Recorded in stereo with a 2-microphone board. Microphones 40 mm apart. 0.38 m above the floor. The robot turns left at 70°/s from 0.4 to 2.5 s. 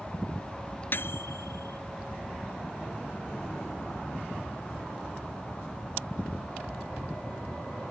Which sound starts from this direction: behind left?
A microwave, at 0.9 s.